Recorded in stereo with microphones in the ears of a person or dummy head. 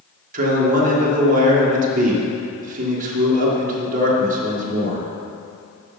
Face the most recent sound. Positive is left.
turn(degrees=-40)  # may be behind; listen again after turning